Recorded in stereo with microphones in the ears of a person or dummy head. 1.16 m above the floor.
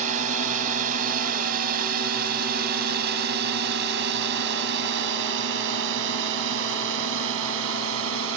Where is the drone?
40° right (ahead or behind); by 8.4 s 75° right (ahead or behind).